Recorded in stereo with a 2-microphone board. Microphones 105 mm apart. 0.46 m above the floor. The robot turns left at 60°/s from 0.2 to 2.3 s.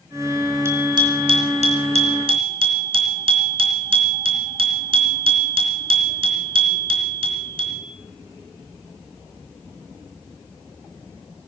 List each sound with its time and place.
0.7 s a bicycle bell: 25° right, 4 m; by 7.8 s 125° right, 4 m